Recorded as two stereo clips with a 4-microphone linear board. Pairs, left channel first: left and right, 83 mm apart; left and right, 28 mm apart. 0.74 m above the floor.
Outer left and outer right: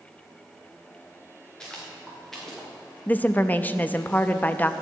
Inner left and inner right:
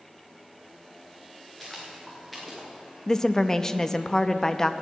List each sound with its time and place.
1.6 s footsteps: 10° left (ahead or behind), 3.5 m; by 2.7 s 5° left (ahead or behind), 5 m
3.1 s a woman speaking: 20° left (ahead or behind), 0.5 m